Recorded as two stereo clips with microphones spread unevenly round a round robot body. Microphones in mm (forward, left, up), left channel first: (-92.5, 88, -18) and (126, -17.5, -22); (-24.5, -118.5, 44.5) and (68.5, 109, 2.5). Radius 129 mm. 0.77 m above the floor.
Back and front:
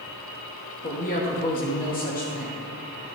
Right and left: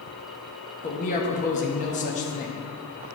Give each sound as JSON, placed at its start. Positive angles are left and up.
{"t": 0.8, "sound": "a man speaking", "azimuth_deg": -170, "distance_m": 1.0}